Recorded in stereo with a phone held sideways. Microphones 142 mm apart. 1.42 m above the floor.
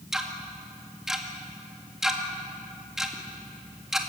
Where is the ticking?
5° right (ahead or behind), 2 m.